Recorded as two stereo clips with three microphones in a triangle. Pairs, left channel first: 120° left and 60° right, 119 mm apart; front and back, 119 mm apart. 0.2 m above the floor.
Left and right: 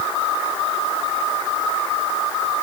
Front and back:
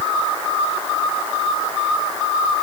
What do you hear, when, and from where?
Only background noise.